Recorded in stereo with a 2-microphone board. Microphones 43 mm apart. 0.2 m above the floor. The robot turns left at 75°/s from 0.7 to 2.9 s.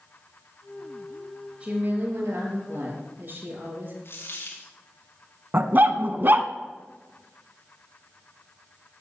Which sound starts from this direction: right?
A dog barking, at 5.5 s.